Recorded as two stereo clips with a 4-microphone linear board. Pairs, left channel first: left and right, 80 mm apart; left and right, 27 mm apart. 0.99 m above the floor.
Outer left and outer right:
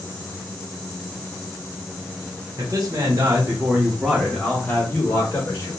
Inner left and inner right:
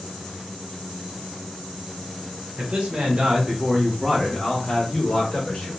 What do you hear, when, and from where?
2.6 s a man speaking: 50° right (ahead or behind), 1.2 m; by 5.7 s 40° left (ahead or behind), 1.3 m